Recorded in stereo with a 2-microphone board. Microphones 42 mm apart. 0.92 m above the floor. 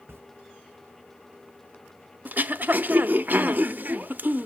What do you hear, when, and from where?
0.1 s a camera shutter: 70° right (ahead or behind), 0.6 m
2.2 s throat clearing: 45° right (ahead or behind), 0.6 m